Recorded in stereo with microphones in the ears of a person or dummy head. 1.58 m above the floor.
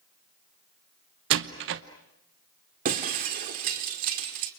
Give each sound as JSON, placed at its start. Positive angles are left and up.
{"t": 1.3, "sound": "a door slam", "side_deg": -55, "distance_m": 0.9}
{"t": 2.9, "sound": "breaking glass", "side_deg": -40, "distance_m": 1.8}